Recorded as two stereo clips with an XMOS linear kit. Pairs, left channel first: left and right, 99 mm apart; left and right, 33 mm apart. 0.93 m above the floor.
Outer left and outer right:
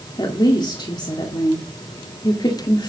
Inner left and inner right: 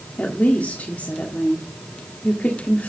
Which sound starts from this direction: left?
A woman speaking, at 0.2 s.